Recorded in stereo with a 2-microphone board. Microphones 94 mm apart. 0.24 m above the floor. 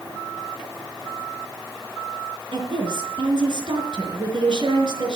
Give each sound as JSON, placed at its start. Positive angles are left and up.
{"t": 2.5, "sound": "a woman speaking", "side_deg": -55, "distance_m": 4.0}